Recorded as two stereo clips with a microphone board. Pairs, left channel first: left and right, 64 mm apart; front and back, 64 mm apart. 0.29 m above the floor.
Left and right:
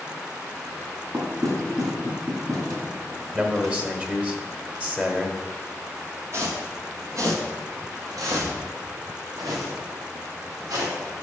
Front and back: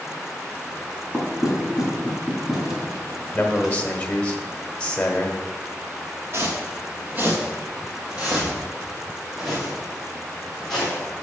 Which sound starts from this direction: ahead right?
A man speaking, at 3.3 s.